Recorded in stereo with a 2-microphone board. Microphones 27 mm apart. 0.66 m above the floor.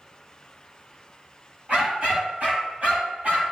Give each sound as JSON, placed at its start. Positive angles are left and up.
{"t": 1.7, "sound": "a dog barking", "side_deg": -50, "distance_m": 5.0}